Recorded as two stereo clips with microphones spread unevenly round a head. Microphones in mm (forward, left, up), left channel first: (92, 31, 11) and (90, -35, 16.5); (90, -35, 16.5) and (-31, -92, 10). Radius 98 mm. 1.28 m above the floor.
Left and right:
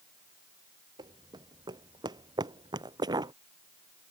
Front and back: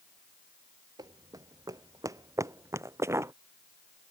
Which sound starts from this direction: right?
Running footsteps, at 1.0 s.